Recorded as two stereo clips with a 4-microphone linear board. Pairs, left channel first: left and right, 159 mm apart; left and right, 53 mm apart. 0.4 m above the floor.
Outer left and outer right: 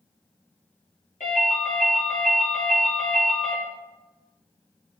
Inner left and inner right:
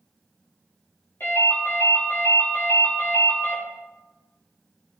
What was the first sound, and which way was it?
A ringtone, 50° left (ahead or behind).